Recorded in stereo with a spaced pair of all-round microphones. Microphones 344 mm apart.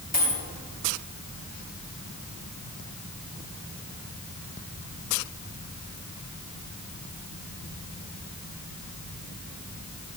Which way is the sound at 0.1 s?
20° left (ahead or behind).